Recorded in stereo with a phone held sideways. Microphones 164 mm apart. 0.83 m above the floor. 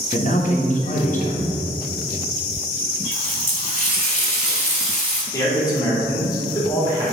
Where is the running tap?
45° left (ahead or behind), 1.5 m.